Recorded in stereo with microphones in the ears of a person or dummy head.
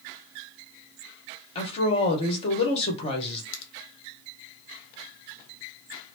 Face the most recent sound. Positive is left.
turn(degrees=75)  # may be behind; listen again after turning